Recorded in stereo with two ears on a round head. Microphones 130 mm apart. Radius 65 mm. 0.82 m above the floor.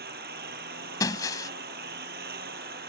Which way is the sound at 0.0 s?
75° right (ahead or behind).